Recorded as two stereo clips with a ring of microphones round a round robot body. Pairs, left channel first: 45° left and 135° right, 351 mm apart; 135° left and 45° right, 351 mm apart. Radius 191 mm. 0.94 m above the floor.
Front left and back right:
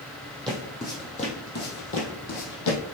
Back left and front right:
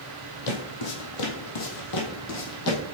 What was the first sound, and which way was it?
Footsteps, 135° left.